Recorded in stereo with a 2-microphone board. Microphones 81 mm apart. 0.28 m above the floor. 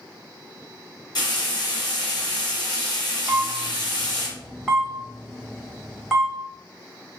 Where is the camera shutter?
Centre (ahead or behind), 1.1 m.